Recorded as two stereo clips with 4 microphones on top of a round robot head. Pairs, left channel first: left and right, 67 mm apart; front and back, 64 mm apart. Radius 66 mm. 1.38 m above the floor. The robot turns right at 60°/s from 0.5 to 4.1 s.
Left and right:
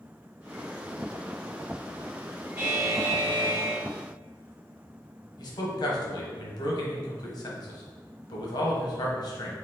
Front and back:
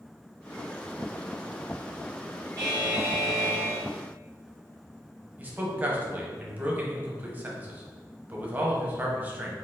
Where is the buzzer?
130° right, 1.1 m; by 3.8 s 55° right, 1.1 m.